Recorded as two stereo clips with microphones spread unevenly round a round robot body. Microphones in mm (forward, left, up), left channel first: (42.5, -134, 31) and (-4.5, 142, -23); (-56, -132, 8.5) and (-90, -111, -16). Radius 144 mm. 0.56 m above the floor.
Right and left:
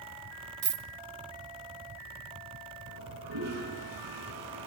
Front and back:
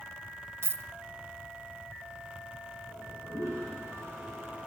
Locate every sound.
0.6 s a dropped coin: 150° left, 1.2 m
2.9 s a toilet flushing: 85° left, 6 m